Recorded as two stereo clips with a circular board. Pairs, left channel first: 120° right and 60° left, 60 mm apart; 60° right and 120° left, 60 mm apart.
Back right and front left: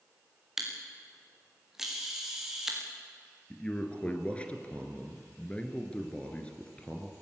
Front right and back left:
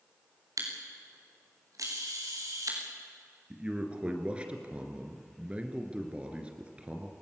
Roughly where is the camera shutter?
Behind left.